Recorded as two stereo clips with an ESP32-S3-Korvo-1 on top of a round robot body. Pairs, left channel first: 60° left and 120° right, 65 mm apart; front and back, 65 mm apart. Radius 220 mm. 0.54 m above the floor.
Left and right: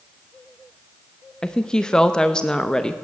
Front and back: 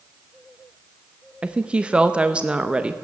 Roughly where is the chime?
No chime in this recording.